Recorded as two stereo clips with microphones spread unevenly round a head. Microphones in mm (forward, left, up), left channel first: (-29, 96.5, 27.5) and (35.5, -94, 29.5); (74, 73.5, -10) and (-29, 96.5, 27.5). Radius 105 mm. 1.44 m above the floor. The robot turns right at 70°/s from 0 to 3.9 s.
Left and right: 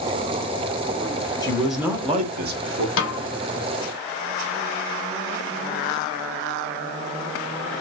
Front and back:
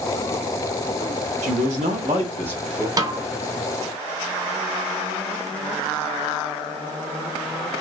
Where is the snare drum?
130° left, 0.8 m; by 3.3 s 150° left, 0.8 m.